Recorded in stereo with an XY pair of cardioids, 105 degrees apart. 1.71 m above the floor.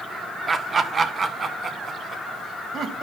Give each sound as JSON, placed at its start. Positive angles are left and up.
{"t": 0.5, "sound": "laughter", "azimuth_deg": -30, "distance_m": 1.0}